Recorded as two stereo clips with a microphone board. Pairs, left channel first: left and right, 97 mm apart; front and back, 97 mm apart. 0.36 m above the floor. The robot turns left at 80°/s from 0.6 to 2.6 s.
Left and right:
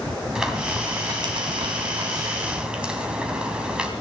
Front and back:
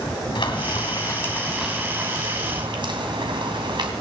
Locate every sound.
0.3 s frying: 10° right, 2.5 m; by 3.9 s 170° right, 2.5 m